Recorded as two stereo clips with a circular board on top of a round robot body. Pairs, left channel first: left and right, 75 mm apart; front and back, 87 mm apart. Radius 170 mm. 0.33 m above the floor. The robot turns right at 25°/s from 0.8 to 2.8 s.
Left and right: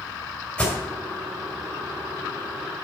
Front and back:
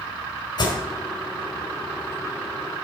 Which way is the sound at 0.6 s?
15° left.